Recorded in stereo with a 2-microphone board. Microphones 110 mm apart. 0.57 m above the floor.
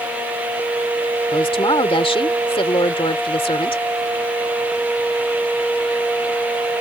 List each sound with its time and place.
1.3 s a woman speaking: 55° left (ahead or behind)